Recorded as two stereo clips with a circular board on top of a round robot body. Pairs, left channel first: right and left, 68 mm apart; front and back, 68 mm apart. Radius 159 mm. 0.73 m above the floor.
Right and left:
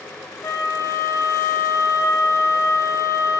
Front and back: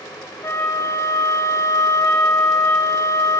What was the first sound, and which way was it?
A flute, 45° right.